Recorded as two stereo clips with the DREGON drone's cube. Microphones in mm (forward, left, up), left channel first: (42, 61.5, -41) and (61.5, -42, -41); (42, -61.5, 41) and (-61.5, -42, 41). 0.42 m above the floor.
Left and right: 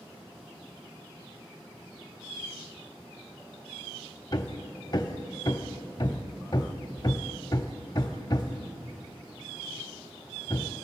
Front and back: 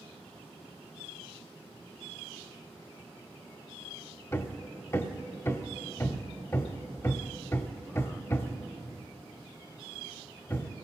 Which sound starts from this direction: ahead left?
Hammering, at 4.3 s.